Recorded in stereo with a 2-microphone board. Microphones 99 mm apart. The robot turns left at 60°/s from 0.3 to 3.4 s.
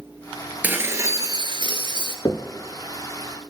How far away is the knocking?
About 1.0 m.